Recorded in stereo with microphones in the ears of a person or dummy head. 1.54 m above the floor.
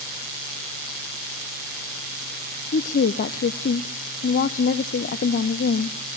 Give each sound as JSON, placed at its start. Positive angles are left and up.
{"t": 2.7, "sound": "a woman speaking", "side_deg": 50, "distance_m": 0.6}